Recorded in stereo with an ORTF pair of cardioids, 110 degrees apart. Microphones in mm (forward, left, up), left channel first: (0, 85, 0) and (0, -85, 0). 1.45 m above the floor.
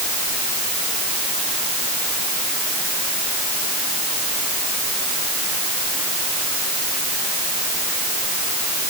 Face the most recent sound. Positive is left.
No sound to turn to.